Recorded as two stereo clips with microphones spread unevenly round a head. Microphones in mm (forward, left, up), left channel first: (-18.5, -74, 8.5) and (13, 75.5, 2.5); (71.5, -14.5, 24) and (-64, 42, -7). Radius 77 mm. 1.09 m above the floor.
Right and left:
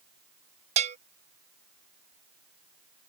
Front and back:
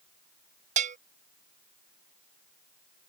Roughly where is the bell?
Behind left.